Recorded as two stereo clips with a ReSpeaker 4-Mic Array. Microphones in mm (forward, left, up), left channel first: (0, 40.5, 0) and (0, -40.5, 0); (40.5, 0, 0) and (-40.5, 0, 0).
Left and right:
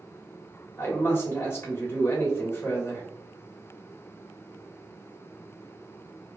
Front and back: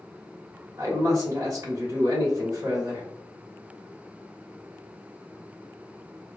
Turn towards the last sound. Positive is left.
turn(degrees=150)